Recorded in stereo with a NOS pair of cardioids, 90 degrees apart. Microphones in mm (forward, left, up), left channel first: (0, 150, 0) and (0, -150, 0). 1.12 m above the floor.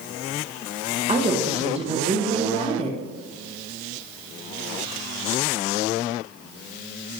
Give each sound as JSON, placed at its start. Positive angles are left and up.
{"t": 1.1, "sound": "a woman speaking", "azimuth_deg": -20, "distance_m": 0.7}